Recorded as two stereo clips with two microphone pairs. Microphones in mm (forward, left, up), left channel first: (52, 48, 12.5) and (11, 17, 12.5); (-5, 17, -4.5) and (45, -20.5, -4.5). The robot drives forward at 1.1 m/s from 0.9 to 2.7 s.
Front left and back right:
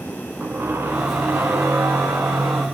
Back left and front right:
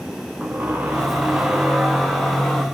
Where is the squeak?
100° right, 3 m; by 2.6 s 130° right, 3.5 m.